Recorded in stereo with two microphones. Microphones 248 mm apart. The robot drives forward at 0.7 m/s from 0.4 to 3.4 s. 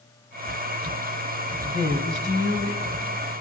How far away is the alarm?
I don't hear an alarm.